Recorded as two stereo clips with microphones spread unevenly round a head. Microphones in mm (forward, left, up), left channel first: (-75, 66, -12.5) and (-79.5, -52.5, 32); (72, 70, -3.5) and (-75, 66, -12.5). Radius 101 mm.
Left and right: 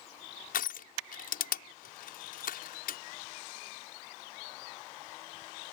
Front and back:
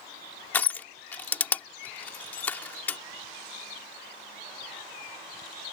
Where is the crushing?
80° left.